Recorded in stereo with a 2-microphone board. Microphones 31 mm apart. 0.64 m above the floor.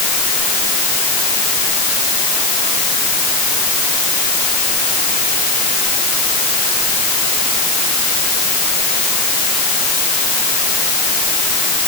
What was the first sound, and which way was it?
Only background noise.